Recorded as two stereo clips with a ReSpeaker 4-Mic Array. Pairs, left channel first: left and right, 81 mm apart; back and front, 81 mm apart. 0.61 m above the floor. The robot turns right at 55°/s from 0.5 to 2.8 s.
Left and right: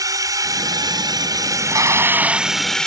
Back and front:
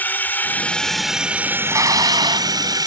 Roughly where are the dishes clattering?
Ahead right.